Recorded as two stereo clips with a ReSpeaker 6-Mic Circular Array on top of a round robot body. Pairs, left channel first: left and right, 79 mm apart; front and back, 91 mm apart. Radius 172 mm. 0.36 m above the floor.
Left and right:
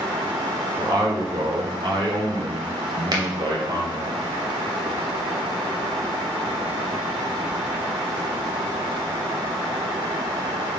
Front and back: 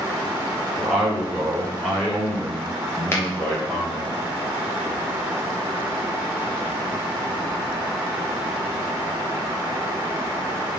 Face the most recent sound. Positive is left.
turn(degrees=-60)